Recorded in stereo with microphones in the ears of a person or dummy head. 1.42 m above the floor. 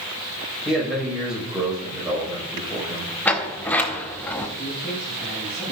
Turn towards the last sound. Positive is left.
turn(degrees=0)  # may be behind; listen again after turning